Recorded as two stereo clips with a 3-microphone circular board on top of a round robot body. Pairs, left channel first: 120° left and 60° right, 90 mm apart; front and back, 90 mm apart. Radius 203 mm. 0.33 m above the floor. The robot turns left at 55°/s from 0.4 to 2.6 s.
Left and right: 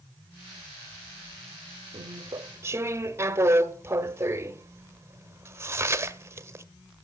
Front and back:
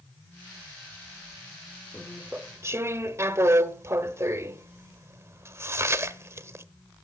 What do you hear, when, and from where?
1.9 s chewing: 85° right, 0.9 m; by 6.7 s 120° right, 0.9 m